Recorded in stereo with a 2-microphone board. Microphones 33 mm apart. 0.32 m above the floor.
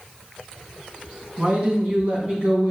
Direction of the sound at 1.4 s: 35° right (ahead or behind).